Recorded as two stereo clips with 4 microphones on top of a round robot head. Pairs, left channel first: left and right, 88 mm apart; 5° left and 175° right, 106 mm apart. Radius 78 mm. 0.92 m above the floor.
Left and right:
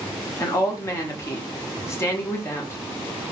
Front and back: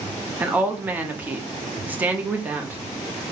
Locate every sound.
0.4 s a woman speaking: 120° left, 0.9 m